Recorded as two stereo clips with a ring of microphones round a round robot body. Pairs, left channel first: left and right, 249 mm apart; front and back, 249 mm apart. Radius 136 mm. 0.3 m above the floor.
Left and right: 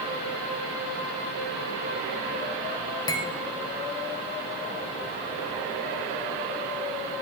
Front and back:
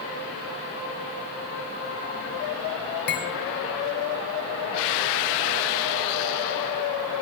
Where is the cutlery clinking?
20° left, 0.8 m.